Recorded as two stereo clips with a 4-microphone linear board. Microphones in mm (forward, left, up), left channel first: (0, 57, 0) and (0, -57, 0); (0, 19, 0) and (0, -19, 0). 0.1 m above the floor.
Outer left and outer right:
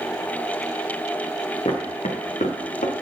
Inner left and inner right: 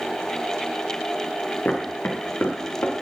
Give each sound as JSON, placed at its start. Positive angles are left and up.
{"t": 1.6, "sound": "footsteps", "side_deg": 60, "distance_m": 2.0}